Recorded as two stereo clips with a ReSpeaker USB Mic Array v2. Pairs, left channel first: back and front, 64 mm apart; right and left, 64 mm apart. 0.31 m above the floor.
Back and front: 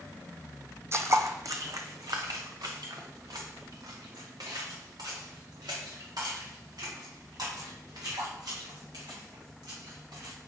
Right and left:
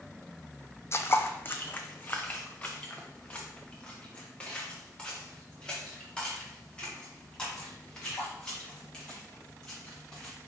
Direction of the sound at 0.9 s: 45° right.